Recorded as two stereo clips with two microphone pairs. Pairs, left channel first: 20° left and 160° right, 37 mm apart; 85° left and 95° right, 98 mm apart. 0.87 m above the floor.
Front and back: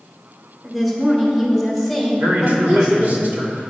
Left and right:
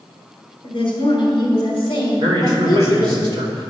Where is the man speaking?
130° right, 2.5 m.